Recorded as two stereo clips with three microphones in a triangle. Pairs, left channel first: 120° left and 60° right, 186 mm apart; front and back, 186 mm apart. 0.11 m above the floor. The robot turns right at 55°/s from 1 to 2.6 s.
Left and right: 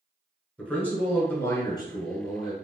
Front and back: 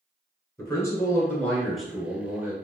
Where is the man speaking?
45° left, 1.2 m; by 2.5 s 130° left, 1.2 m.